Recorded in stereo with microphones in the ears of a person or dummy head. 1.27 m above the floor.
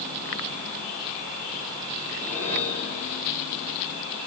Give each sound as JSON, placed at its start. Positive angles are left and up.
{"t": 2.1, "sound": "a whoosh", "side_deg": 10, "distance_m": 6.0}